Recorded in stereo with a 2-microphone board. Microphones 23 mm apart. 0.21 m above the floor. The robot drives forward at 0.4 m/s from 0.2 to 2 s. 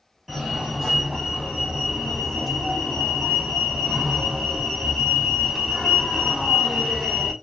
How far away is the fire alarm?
About 2.0 m.